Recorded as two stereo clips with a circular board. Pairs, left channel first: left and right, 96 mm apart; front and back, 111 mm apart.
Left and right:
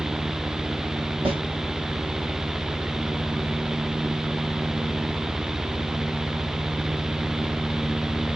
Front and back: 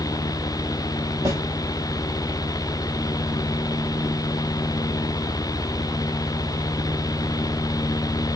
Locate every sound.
1.2 s a snare drum: 115° right, 1.9 m